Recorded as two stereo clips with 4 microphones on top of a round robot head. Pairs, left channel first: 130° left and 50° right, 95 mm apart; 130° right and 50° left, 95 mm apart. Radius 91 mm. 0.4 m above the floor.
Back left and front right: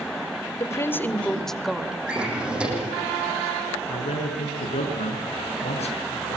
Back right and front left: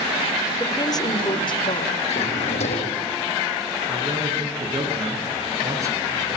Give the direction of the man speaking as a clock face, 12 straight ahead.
8 o'clock.